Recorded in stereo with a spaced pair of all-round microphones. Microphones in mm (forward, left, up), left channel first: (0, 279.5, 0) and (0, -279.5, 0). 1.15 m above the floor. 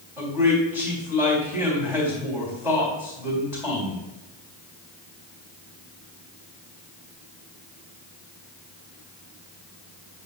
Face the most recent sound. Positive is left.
turn(degrees=-5)  # may be behind; listen again after turning